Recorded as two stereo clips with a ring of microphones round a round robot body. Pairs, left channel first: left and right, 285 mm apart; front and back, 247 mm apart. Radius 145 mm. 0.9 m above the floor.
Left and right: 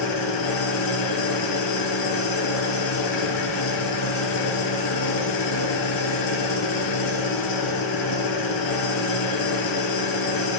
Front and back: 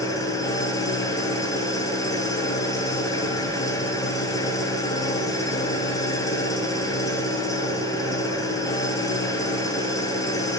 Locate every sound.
0.0 s an engine running: 75° left, 5 m